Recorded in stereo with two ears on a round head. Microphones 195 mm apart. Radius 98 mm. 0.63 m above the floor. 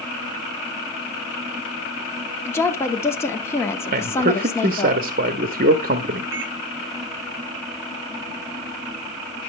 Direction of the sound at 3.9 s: 40° right (ahead or behind).